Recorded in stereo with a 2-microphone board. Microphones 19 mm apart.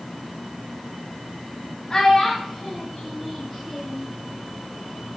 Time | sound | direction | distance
1.9 | a child speaking | 30° left (ahead or behind) | 0.6 m